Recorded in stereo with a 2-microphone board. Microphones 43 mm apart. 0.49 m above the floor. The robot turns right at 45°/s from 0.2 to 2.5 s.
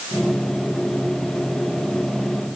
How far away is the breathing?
No breathing in this recording.